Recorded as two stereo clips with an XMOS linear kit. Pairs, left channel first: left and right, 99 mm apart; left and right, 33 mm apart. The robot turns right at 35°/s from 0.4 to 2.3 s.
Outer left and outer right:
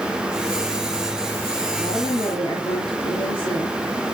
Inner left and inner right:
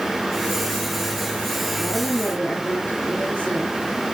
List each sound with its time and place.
1.8 s a woman speaking: 55° left (ahead or behind), 2.5 m